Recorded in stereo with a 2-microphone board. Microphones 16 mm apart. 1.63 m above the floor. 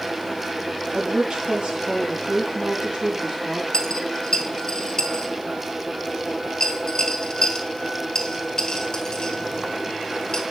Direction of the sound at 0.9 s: 70° right (ahead or behind).